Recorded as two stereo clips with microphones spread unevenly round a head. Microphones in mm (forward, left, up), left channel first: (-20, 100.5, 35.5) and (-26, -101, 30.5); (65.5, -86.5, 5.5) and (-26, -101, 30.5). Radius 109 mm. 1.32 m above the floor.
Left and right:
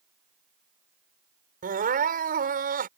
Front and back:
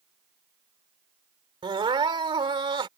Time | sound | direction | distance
1.6 | crying | 140° right | ?